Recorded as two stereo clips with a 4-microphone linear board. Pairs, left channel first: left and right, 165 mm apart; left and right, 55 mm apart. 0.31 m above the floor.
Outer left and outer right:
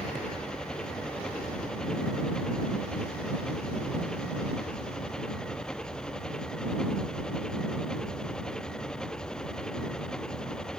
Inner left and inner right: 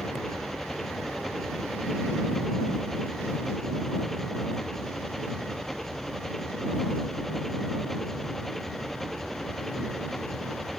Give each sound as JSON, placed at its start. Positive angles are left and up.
{"t": 0.0, "sound": "an engine running", "side_deg": 5}